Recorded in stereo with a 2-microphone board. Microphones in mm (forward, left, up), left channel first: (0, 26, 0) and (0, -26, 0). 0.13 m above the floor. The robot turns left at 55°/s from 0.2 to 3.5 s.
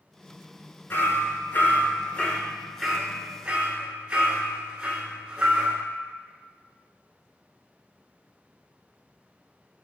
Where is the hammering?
40° left (ahead or behind), 0.7 m; by 5.8 s 20° right (ahead or behind), 0.7 m.